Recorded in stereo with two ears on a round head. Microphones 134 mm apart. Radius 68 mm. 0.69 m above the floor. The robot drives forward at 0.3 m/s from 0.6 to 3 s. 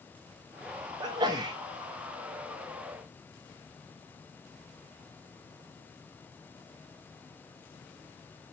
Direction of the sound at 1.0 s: 30° right (ahead or behind).